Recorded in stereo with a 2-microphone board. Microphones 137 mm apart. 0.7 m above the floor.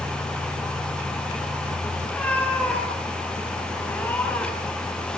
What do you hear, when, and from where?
2.0 s a cat meowing: 10° left (ahead or behind), 6.5 m